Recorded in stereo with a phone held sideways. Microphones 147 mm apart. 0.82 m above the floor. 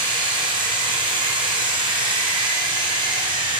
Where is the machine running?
30° right (ahead or behind), 4 m.